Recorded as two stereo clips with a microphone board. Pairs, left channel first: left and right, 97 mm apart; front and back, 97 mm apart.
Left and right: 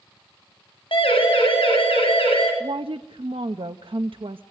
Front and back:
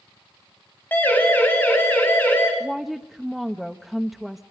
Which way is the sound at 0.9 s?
70° left.